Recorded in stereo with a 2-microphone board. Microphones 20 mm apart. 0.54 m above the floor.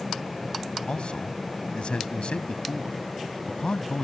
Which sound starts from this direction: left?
A man speaking, at 0.9 s.